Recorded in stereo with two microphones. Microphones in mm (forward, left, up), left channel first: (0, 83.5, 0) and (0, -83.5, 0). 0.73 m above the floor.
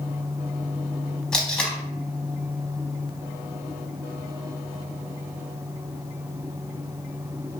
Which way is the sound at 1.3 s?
5° left (ahead or behind).